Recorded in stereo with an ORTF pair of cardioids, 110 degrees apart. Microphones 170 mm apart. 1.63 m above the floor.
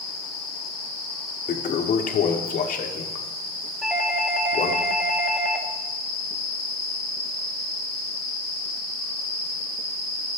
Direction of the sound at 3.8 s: 5° right.